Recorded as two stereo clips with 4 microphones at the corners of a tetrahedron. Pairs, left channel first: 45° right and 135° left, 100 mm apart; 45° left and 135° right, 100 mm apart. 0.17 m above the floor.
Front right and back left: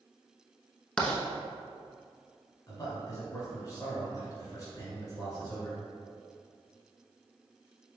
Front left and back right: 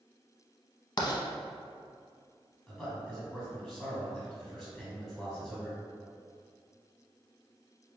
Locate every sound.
1.0 s writing: 30° left, 0.7 m
2.7 s a man speaking: 40° right, 1.7 m